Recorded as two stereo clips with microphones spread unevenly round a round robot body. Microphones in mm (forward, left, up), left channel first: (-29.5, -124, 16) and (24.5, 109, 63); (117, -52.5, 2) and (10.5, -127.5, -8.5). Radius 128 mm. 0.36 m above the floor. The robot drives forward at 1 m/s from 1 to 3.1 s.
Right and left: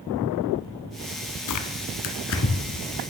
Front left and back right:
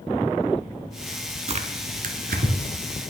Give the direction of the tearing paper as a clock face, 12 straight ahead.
3 o'clock.